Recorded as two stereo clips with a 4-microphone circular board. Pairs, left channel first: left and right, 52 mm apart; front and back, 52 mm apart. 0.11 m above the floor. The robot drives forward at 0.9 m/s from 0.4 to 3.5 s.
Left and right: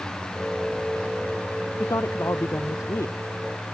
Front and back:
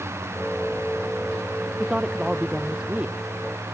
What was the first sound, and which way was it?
A woman speaking, 105° left.